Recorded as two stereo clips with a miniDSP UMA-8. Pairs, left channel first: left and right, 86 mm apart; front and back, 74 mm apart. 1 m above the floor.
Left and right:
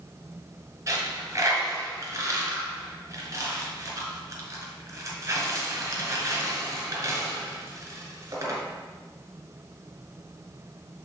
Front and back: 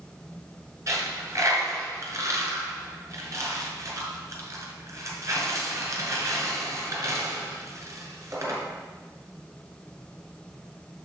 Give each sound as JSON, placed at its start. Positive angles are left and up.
{"t": 0.9, "sound": "a dropped coin", "azimuth_deg": -140, "distance_m": 2.0}